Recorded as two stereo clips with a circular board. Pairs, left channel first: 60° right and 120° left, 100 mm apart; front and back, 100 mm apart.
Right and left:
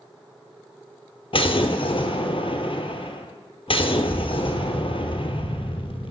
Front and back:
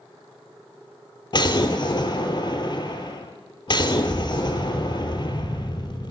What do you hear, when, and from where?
1.3 s an explosion: 40° right, 0.8 m